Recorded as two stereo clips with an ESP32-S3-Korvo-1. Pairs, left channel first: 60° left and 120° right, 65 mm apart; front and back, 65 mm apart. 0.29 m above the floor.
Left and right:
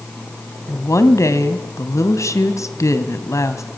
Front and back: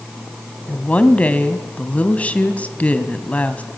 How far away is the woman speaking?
About 1.9 m.